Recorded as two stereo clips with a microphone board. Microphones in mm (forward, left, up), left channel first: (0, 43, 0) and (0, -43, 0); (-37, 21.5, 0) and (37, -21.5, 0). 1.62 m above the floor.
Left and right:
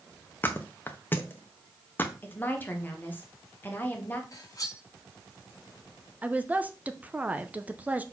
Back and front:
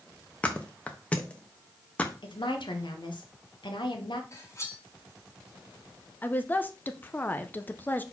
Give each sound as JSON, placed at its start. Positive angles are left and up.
{"t": 0.4, "sound": "a thud", "azimuth_deg": 105, "distance_m": 0.9}
{"t": 2.2, "sound": "a woman speaking", "azimuth_deg": 155, "distance_m": 1.5}
{"t": 4.3, "sound": "cutlery clinking", "azimuth_deg": 110, "distance_m": 1.3}
{"t": 6.2, "sound": "a woman speaking", "azimuth_deg": -155, "distance_m": 0.7}